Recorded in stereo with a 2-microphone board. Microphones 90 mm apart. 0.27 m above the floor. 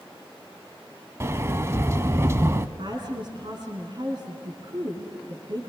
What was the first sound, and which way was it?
A sliding door, 30° right (ahead or behind).